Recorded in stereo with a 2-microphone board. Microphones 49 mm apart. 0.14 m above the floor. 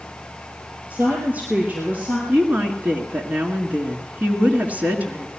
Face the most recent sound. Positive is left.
turn(degrees=-35)  # may be behind; listen again after turning